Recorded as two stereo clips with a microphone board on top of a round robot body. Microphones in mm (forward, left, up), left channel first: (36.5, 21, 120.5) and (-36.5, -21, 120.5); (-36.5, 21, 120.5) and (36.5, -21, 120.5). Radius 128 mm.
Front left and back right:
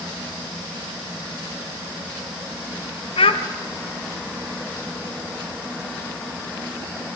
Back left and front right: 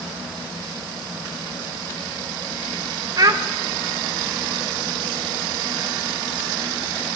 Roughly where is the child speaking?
Ahead.